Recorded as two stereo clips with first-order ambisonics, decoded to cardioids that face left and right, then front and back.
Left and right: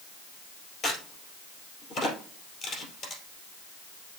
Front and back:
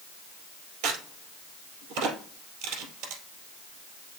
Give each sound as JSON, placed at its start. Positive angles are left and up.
{"t": 0.8, "sound": "a crack", "azimuth_deg": 150, "distance_m": 2.5}